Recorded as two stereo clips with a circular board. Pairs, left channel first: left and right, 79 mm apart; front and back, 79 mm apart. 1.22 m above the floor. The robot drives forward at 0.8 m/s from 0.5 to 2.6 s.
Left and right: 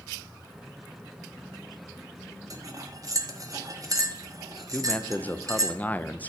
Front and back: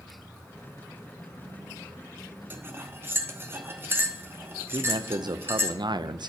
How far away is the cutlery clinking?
About 0.9 m.